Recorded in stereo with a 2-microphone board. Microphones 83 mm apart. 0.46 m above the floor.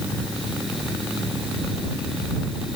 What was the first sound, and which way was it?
Only background noise.